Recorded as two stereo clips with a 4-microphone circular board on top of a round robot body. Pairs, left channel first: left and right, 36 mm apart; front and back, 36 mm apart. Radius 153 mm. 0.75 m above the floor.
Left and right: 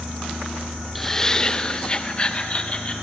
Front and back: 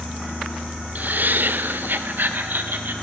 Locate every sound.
0.9 s laughter: 175° left, 0.7 m; by 2.9 s 150° left, 2 m